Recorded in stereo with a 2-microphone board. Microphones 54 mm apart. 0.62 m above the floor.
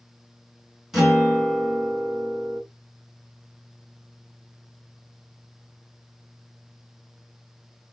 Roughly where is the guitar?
Centre.